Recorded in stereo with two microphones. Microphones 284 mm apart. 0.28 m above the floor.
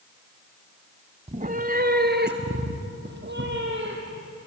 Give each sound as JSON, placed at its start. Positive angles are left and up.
{"t": 1.3, "sound": "a cat meowing", "side_deg": -20, "distance_m": 0.6}